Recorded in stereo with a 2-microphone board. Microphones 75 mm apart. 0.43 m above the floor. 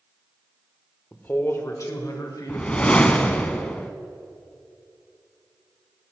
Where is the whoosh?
15° left (ahead or behind), 0.6 m.